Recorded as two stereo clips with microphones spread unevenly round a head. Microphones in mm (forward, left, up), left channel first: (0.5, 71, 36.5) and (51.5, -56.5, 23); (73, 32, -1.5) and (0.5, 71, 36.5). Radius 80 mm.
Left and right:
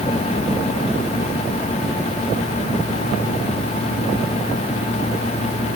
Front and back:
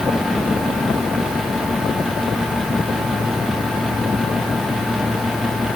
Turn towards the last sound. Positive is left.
No sound to turn to.